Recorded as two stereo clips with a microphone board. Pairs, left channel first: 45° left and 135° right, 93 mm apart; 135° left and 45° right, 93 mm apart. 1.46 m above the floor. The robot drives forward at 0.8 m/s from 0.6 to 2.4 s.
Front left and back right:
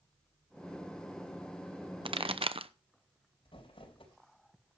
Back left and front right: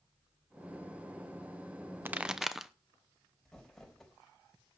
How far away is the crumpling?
About 4 m.